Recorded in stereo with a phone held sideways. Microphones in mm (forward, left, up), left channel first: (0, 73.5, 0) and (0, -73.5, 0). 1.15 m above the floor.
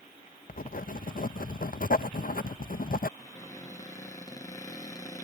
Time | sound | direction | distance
0.5 | writing | 70° left (ahead or behind) | ?
3.2 | a cupboard door | 25° left (ahead or behind) | ?